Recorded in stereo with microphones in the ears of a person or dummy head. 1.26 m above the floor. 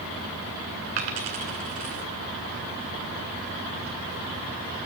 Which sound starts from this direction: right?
A dropped coin, at 1.0 s.